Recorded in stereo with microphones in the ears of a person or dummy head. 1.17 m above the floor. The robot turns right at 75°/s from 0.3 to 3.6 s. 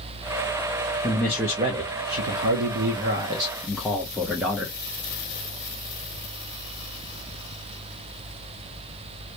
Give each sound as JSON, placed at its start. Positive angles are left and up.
{"t": 1.0, "sound": "a man speaking", "azimuth_deg": 160, "distance_m": 0.8}